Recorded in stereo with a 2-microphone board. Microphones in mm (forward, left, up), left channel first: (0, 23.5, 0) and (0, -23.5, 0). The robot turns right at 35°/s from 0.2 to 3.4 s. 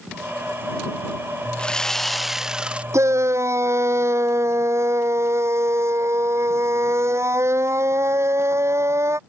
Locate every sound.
1.6 s sawing: 160° left; by 2.8 s 155° right
2.9 s a shout: 80° right; by 9.2 s 70° right (ahead or behind)